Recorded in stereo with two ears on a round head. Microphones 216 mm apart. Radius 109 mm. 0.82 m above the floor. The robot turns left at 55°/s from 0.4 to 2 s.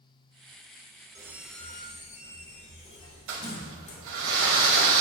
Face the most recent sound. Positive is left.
turn(degrees=-60)  # may be behind; listen again after turning